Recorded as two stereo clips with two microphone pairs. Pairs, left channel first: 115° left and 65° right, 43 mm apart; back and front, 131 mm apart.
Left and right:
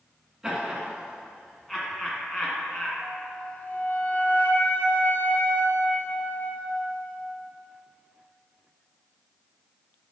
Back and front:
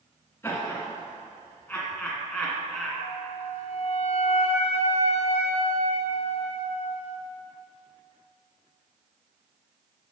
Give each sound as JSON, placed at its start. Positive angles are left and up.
{"t": 0.4, "sound": "laughter", "azimuth_deg": -135, "distance_m": 1.6}
{"t": 3.0, "sound": "a flute", "azimuth_deg": 155, "distance_m": 1.0}